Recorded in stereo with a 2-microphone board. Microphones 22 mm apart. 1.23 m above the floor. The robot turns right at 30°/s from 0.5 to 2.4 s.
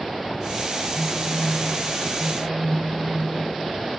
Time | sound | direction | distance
0.9 | a phone buzzing | 25° right | 7 m